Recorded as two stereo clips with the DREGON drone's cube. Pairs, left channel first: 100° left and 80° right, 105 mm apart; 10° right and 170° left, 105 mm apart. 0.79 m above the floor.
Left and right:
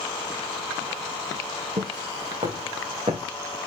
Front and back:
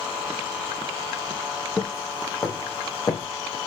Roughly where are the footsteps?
Right.